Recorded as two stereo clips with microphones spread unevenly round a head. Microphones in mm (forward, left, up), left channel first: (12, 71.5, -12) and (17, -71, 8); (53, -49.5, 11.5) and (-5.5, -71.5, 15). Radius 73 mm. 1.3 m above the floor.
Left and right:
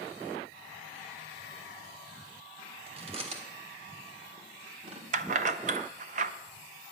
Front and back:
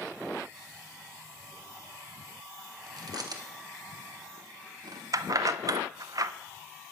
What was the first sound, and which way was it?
Chewing, 140° right.